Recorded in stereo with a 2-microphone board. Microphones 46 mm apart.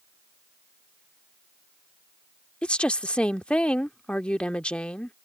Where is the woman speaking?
25° left (ahead or behind).